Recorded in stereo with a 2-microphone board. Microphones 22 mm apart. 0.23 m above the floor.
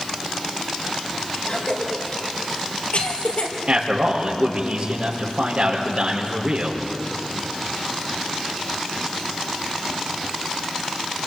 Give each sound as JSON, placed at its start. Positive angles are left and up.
{"t": 1.5, "sound": "a cough", "side_deg": 75, "distance_m": 5.0}
{"t": 3.7, "sound": "a man speaking", "side_deg": -55, "distance_m": 5.5}